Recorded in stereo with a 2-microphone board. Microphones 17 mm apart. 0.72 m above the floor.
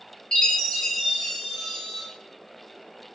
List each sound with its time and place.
0.3 s a chime: 50° left (ahead or behind), 1.6 m